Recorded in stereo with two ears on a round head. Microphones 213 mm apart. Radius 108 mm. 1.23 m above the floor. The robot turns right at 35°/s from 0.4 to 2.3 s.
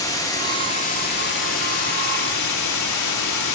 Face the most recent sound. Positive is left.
turn(degrees=85)